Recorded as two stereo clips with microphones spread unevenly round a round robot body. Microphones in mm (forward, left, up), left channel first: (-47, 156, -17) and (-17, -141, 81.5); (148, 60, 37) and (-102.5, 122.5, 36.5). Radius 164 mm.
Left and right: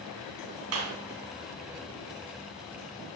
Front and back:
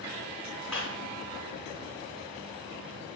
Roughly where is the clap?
Right.